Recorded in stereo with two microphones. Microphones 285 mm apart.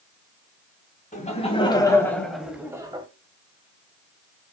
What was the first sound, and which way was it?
Laughter, 25° left (ahead or behind).